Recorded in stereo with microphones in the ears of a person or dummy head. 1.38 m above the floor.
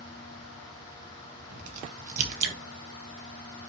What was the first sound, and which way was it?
A crack, 45° right (ahead or behind).